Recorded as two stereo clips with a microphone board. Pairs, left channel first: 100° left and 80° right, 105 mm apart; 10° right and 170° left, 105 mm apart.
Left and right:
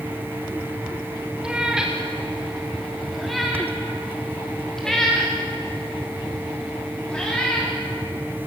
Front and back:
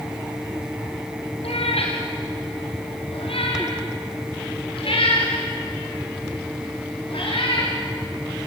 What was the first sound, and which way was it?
A cat meowing, 5° left.